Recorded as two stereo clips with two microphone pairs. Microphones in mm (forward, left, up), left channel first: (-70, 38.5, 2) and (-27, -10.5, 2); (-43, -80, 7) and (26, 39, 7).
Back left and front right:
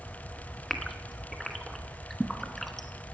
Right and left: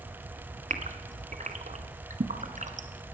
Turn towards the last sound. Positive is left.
turn(degrees=45)